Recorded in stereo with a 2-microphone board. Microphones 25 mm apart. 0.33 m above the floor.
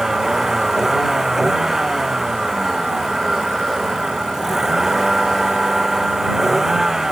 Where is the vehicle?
15° right (ahead or behind).